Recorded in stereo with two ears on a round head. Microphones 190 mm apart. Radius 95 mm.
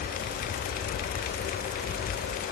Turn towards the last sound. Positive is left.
No sound to turn to.